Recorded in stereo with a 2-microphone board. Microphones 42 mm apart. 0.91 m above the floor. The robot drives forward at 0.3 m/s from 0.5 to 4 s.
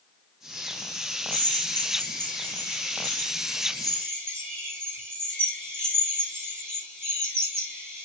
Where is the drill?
60° right (ahead or behind), 5.5 m; by 8.1 s 70° right (ahead or behind), 5 m.